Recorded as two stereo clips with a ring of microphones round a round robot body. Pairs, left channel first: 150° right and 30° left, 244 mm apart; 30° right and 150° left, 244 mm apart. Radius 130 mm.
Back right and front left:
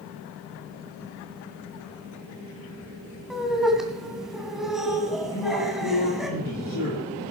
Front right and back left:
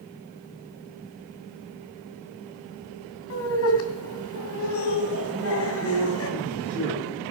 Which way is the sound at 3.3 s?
60° right.